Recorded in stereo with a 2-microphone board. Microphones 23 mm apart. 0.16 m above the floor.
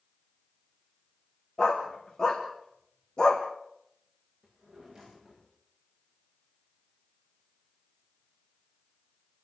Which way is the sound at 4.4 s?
20° right (ahead or behind).